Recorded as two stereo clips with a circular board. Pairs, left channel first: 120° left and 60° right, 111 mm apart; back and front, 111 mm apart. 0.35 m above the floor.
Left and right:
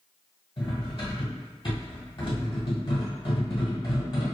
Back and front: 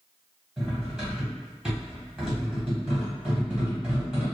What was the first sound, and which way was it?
Cutlery clinking, 85° left.